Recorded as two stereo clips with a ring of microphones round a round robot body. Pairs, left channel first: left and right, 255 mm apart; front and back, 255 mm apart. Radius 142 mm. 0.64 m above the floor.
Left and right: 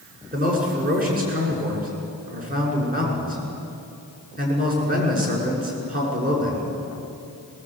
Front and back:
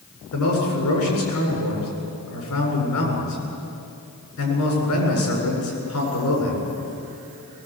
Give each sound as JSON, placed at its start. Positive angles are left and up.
{"t": 0.3, "sound": "a man speaking", "azimuth_deg": -35, "distance_m": 7.5}